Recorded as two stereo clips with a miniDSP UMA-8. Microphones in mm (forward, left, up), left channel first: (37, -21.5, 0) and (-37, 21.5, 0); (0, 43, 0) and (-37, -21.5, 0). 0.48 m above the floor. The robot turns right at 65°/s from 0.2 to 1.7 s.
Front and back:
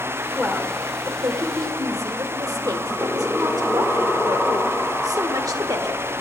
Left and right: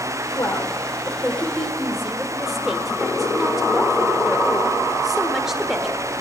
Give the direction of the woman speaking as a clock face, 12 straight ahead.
10 o'clock.